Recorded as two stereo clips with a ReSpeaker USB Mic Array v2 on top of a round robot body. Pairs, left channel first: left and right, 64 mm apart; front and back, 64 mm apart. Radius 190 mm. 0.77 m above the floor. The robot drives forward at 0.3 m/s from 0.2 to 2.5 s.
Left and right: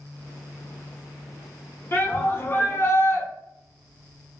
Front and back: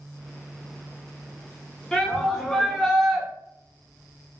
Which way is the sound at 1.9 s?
75° left.